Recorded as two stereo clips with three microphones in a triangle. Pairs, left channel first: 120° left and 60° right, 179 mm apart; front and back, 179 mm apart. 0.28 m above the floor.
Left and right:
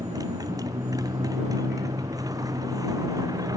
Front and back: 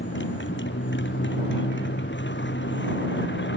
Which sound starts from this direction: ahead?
A motorcycle, at 0.0 s.